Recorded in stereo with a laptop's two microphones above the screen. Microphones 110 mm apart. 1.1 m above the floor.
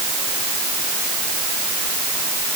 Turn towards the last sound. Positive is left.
No sound to turn to.